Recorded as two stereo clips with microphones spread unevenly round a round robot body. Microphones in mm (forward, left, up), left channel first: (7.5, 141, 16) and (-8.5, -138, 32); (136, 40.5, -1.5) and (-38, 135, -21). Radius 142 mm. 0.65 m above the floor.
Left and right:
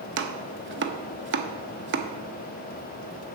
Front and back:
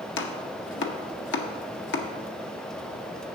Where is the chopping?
50° right, 0.8 m.